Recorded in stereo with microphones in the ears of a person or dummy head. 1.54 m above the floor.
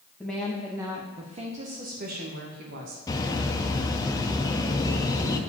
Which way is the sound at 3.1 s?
20° left (ahead or behind).